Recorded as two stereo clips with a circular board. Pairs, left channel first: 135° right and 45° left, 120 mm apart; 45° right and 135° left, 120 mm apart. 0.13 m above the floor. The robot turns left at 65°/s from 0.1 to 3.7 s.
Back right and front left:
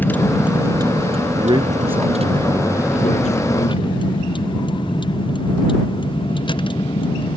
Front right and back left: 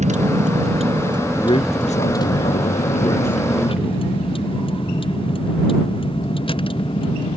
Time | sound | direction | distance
0.0 | a vehicle | 150° left | ?
1.4 | a man speaking | 10° left | ?